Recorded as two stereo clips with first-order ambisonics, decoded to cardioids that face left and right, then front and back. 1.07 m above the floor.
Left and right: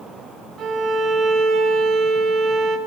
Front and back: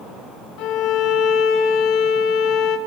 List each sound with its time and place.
0.6 s a violin: 35° right, 2 m